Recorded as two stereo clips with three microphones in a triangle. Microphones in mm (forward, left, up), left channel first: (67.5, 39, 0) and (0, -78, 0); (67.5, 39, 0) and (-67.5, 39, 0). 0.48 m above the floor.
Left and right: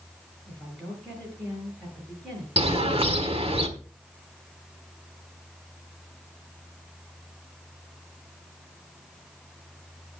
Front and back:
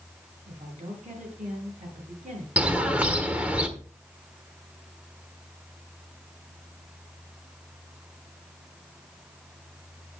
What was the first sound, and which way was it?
A woman speaking, 145° left.